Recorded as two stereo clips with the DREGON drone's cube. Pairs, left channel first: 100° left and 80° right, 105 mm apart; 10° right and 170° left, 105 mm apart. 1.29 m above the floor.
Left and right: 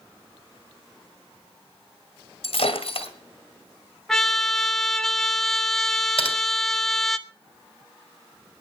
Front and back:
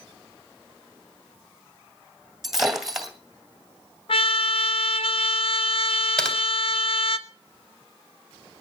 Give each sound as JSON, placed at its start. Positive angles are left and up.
{"t": 2.4, "sound": "breaking glass", "azimuth_deg": 85, "distance_m": 2.5}
{"t": 4.1, "sound": "a trumpet", "azimuth_deg": 15, "distance_m": 1.0}
{"t": 6.2, "sound": "typing on a keyboard", "azimuth_deg": 70, "distance_m": 3.0}